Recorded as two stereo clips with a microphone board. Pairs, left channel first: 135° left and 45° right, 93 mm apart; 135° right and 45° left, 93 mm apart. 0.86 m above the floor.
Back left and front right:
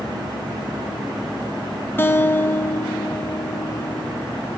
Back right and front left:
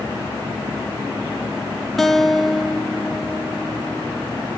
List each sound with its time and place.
2.0 s a guitar: 140° left, 0.8 m